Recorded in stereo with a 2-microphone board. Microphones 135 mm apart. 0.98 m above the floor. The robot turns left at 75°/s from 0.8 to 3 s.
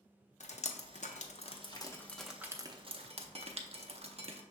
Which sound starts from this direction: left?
Dripping, at 0.4 s.